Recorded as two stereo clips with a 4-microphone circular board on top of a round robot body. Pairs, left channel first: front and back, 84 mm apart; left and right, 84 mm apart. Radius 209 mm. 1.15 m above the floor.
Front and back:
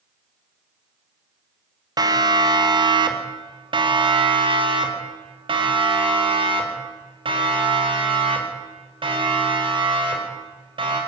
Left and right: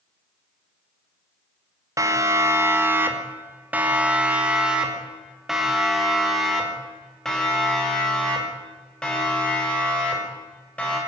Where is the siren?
140° right, 2.5 m; by 11.0 s 165° left, 7 m.